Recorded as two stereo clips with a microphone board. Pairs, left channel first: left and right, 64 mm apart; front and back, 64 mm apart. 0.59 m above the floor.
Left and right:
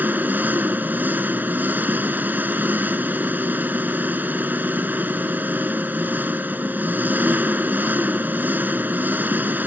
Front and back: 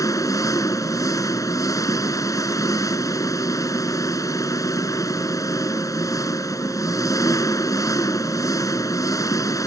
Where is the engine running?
25° right.